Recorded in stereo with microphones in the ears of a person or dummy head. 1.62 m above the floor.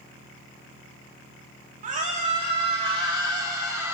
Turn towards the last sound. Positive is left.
turn(degrees=-15)  # may be behind; listen again after turning